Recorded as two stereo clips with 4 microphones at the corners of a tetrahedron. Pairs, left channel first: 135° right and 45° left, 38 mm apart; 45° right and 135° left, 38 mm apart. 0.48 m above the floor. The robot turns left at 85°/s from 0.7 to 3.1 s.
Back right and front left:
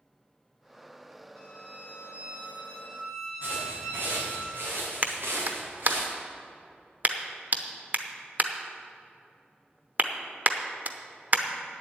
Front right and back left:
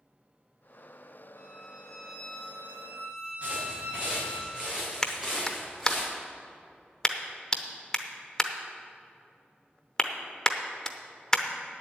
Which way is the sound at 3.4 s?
80° left.